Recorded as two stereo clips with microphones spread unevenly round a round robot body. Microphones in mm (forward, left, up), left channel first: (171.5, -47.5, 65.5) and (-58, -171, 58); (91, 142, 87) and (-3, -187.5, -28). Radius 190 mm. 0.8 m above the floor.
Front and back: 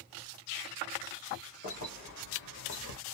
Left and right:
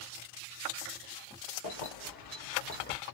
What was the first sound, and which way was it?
Keys jangling, 40° left.